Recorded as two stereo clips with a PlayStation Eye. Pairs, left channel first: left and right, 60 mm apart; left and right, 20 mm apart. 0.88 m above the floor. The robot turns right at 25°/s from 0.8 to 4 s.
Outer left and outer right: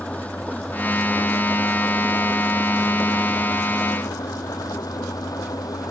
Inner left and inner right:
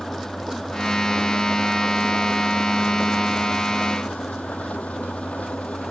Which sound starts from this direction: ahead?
An engine running, at 0.0 s.